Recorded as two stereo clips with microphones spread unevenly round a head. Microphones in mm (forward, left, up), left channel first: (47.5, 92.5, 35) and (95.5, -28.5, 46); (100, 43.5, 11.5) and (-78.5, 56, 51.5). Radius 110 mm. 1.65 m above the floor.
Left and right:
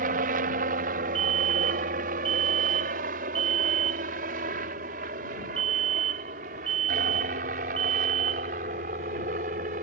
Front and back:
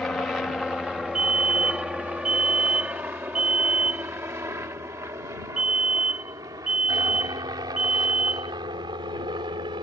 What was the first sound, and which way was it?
A helicopter, 90° right.